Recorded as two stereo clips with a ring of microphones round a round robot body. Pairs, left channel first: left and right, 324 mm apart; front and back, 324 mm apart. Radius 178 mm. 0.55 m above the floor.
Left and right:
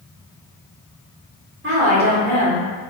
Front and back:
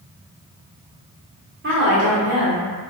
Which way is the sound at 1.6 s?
135° right.